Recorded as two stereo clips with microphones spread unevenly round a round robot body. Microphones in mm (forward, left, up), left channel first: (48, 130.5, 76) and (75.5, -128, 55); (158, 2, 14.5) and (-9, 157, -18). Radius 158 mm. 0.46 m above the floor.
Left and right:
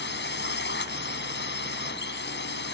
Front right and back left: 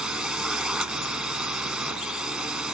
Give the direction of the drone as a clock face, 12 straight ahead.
10 o'clock.